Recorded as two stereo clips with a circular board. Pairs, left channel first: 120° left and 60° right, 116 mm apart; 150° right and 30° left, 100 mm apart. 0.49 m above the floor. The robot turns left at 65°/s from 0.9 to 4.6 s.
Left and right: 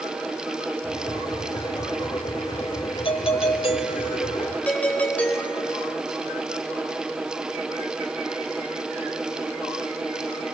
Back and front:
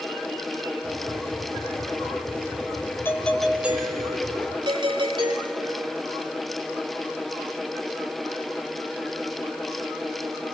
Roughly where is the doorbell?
Behind left.